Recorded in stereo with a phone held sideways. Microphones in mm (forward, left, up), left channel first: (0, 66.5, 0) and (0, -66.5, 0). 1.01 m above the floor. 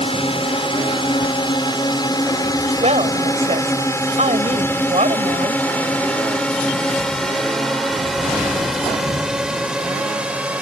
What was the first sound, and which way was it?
A drone, 45° left (ahead or behind).